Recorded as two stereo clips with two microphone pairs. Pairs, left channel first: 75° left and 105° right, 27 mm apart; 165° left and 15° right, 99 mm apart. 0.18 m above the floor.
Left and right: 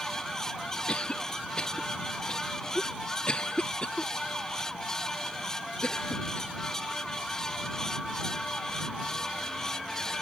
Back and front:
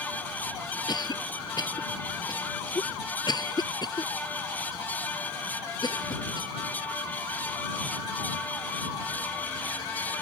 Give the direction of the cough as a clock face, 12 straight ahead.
8 o'clock.